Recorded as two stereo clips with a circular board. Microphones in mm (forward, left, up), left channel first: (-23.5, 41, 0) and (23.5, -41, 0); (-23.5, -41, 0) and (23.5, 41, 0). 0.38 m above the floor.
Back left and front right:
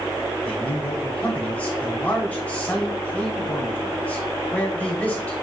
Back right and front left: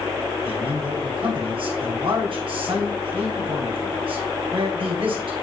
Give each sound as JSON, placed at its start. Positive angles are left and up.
{"t": 0.5, "sound": "a man speaking", "azimuth_deg": 45, "distance_m": 2.5}